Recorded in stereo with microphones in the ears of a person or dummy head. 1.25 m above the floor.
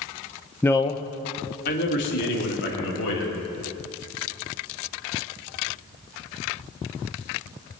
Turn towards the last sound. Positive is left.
turn(degrees=70)  # may be behind; listen again after turning